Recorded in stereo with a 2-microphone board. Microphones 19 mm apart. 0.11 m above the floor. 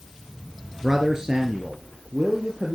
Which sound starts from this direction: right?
A man speaking, at 0.8 s.